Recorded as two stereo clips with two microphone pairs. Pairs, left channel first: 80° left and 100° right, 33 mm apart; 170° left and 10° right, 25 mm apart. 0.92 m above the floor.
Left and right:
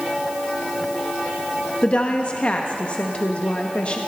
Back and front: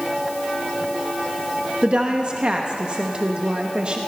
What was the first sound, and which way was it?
A woman speaking, 30° left.